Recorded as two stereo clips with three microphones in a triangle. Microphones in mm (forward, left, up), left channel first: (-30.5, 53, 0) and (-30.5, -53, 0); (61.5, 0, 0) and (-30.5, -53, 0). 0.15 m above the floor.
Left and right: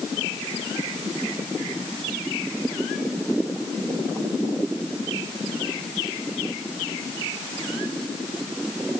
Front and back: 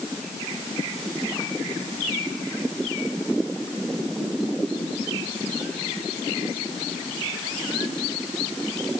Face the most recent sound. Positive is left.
No sound to turn to.